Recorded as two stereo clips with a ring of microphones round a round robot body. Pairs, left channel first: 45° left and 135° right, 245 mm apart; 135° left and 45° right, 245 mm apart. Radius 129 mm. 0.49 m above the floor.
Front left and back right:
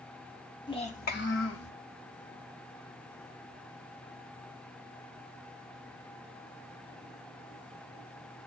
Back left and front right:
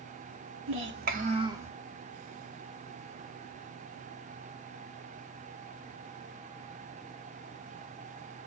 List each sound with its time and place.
0.7 s a child speaking: 25° right, 1.5 m; by 1.7 s 35° left, 1.7 m